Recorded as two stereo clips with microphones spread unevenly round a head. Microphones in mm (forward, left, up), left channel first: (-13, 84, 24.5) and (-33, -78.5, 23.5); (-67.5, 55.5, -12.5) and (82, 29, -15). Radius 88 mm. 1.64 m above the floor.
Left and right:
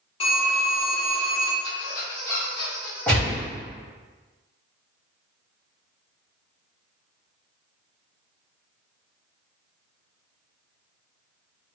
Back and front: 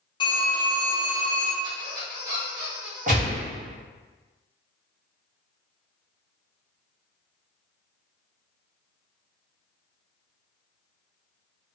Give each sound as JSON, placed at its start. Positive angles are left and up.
{"t": 0.2, "sound": "a phone ringing", "azimuth_deg": 125, "distance_m": 0.9}
{"t": 1.6, "sound": "a squeak", "azimuth_deg": 50, "distance_m": 1.4}
{"t": 3.1, "sound": "a gunshot", "azimuth_deg": 0, "distance_m": 1.2}